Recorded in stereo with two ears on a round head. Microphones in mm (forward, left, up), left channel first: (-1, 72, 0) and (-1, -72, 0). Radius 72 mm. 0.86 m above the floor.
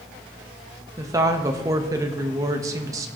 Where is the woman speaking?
20° right (ahead or behind), 1.0 m.